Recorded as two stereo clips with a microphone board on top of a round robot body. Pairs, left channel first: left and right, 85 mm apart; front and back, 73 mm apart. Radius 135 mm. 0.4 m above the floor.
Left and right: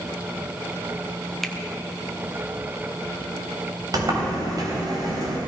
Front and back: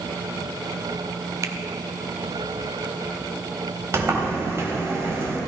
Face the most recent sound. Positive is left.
turn(degrees=-130)